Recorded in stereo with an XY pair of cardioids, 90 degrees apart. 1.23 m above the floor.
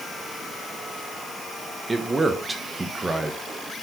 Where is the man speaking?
25° right, 1.0 m.